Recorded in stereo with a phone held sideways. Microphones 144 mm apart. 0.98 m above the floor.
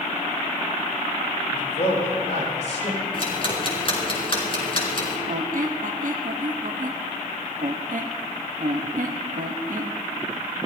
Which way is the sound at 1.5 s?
50° left (ahead or behind).